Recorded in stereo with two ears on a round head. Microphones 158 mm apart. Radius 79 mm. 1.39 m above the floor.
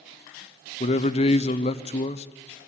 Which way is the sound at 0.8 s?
35° left (ahead or behind).